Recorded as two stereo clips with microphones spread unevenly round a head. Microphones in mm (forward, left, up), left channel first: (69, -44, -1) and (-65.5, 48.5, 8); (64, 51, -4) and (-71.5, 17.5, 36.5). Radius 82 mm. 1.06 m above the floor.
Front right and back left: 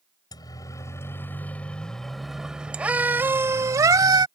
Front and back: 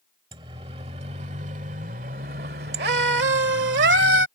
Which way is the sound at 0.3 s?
105° right.